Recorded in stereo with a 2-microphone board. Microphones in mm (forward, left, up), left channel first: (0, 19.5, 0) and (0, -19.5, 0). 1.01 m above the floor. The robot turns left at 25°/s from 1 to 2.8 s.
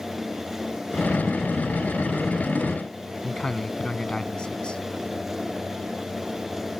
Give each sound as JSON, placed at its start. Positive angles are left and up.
{"t": 3.2, "sound": "a man speaking", "side_deg": 20}